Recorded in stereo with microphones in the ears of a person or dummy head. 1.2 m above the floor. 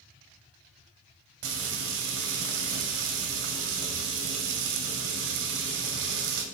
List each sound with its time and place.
1.4 s frying: 75° right (ahead or behind), 2.5 m